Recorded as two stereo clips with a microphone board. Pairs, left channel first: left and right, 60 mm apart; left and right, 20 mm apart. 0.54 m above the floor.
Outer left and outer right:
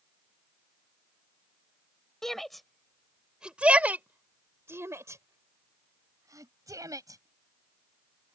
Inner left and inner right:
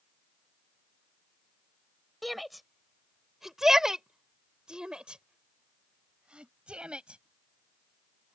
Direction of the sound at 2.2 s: 5° left (ahead or behind).